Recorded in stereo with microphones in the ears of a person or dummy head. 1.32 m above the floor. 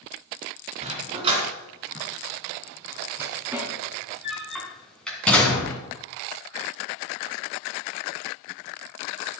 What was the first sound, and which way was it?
A dog barking, 35° right (ahead or behind).